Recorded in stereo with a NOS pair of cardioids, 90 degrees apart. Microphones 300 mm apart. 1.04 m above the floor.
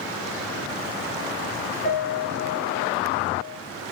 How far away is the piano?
About 0.9 m.